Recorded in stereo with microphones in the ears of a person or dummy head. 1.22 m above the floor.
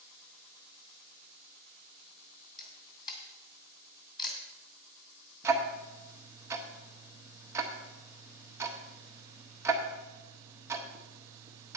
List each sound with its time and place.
2.6 s a camera shutter: 20° left (ahead or behind), 2.5 m
5.4 s ticking: 10° right (ahead or behind), 1.0 m